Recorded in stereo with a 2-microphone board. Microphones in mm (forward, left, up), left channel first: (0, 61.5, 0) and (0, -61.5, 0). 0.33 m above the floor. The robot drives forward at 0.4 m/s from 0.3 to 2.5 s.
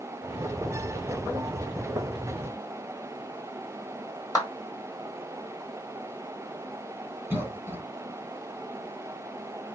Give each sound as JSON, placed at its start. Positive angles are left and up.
{"t": 4.3, "sound": "a clap", "side_deg": 30, "distance_m": 1.5}
{"t": 7.3, "sound": "a cough", "side_deg": -20, "distance_m": 1.2}